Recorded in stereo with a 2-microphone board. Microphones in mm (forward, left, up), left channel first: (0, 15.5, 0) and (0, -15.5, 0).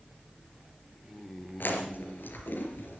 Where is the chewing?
80° left, 3.5 m.